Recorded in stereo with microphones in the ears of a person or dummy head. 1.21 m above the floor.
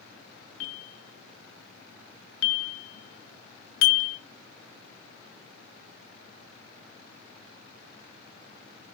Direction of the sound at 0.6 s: 65° left (ahead or behind).